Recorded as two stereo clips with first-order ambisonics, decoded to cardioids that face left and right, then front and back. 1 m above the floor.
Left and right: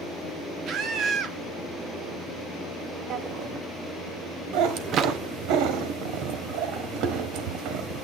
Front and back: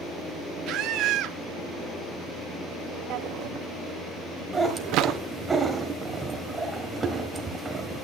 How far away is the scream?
About 1.6 m.